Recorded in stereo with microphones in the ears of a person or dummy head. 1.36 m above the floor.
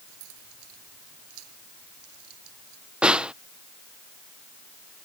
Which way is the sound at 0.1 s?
85° right.